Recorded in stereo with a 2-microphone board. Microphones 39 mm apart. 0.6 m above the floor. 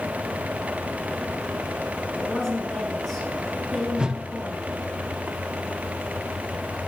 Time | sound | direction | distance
2.1 | a woman speaking | 20° left (ahead or behind) | 5.5 m
4.0 | a whoosh | 20° right (ahead or behind) | 0.7 m